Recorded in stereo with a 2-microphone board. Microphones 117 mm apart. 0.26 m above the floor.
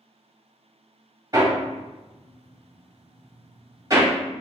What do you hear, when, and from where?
1.3 s hammering: 30° right (ahead or behind), 1.0 m